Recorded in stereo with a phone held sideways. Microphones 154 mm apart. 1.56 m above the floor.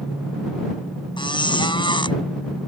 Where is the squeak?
30° left (ahead or behind).